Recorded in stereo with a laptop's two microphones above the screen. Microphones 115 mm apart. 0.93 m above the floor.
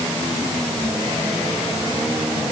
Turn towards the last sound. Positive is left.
No sound to turn to.